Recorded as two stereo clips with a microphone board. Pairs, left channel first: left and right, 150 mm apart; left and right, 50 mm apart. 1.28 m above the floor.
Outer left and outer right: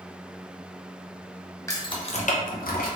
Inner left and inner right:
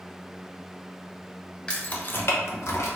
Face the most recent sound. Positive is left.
turn(degrees=80)